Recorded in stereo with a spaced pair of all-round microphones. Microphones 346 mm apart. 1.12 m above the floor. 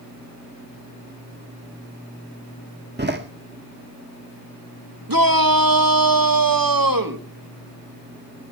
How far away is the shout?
About 1.8 m.